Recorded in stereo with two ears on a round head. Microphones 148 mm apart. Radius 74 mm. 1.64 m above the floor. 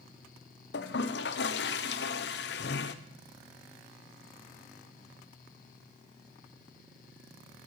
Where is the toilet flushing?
70° left (ahead or behind), 0.7 m.